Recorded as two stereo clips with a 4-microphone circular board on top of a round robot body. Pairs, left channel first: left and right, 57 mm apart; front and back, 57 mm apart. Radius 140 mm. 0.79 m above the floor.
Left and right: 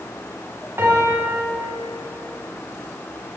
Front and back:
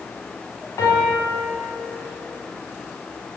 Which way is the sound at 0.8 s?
40° right.